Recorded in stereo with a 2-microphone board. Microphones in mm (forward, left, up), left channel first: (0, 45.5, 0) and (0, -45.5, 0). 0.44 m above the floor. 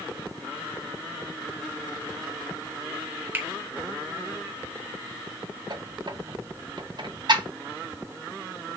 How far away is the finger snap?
About 1.0 m.